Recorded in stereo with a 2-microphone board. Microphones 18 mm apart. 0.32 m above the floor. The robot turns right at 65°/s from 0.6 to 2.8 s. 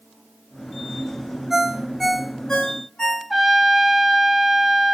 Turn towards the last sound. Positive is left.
turn(degrees=5)  # may be behind; listen again after turning